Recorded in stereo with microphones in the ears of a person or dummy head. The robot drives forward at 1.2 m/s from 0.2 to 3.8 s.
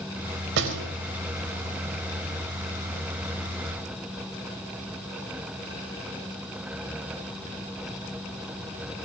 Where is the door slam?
60° right (ahead or behind), 5 m; by 0.9 s 65° right (ahead or behind), 4.5 m.